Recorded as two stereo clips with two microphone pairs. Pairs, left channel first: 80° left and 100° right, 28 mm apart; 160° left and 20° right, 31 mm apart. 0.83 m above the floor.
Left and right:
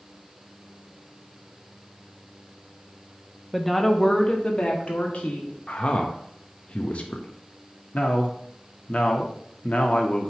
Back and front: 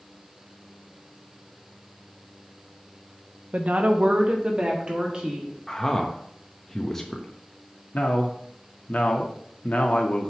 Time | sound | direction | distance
3.5 | a woman speaking | 10° right | 0.8 m
5.7 | a man speaking | 90° left | 0.9 m
7.9 | a man speaking | 125° left | 1.3 m